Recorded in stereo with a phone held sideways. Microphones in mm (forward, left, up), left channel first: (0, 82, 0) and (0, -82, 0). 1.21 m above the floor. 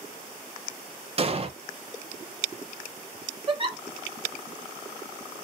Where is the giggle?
35° right (ahead or behind), 0.7 m.